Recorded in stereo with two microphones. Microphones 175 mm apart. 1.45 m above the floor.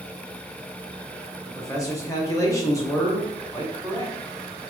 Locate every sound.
1.4 s a man speaking: 20° left (ahead or behind), 1.0 m